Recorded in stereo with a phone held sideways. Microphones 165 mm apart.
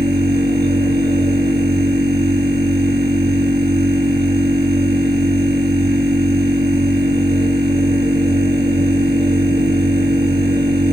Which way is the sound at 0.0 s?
70° right (ahead or behind).